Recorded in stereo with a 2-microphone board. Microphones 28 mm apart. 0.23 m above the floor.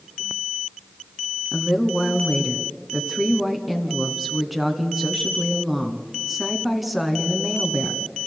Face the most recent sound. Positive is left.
turn(degrees=-5)  # may be behind; listen again after turning